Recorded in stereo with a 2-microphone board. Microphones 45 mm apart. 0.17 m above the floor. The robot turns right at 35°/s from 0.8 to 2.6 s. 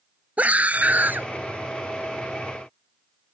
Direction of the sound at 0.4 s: 35° right (ahead or behind).